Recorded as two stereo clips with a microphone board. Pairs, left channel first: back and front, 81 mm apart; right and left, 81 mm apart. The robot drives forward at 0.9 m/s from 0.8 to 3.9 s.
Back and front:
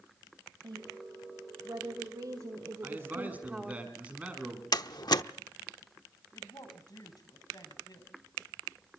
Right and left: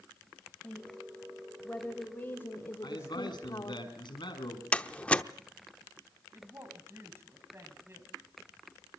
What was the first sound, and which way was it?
A woman speaking, 15° right.